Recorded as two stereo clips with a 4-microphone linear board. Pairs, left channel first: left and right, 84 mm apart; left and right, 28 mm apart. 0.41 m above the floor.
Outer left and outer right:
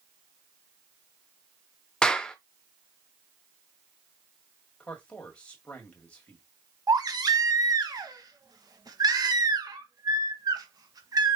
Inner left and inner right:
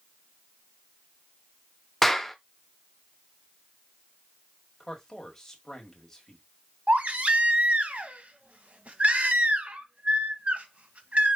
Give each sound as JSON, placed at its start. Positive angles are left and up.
{"t": 2.0, "sound": "a clap", "side_deg": 10, "distance_m": 0.6}
{"t": 4.8, "sound": "a man speaking", "side_deg": 15, "distance_m": 1.8}
{"t": 6.9, "sound": "a baby crying", "side_deg": -50, "distance_m": 0.9}